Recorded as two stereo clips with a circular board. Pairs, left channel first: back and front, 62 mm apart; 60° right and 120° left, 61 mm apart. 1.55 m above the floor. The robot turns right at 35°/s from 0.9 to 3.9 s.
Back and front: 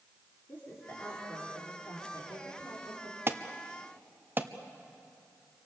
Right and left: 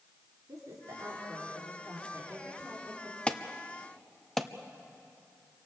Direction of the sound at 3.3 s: Straight ahead.